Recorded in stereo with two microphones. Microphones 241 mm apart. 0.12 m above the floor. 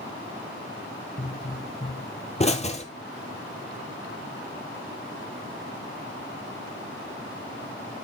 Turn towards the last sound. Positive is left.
turn(degrees=25)  # may be behind; listen again after turning